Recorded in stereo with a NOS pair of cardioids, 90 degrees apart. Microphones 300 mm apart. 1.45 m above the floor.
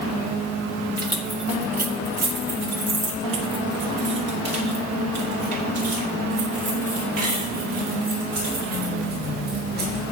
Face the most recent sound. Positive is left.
turn(degrees=-75)